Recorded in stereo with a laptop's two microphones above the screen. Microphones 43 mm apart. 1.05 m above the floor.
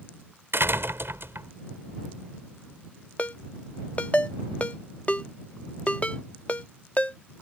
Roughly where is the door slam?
Right.